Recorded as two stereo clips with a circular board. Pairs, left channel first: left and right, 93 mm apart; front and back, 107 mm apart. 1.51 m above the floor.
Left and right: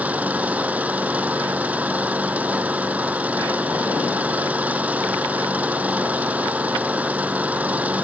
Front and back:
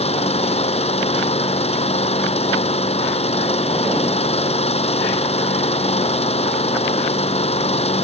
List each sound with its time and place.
0.0 s an engine running: 15° right